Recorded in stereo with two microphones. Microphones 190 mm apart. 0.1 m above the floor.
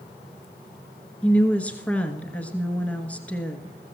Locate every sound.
1.2 s a woman speaking: 5° left (ahead or behind), 1.2 m